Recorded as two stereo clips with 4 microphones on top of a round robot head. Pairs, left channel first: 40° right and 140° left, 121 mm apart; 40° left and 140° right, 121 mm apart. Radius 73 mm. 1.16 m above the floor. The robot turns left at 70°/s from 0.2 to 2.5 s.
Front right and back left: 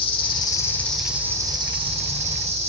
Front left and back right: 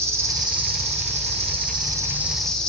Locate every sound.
0.0 s an insect: 75° right, 1.5 m; by 2.7 s 125° left, 1.5 m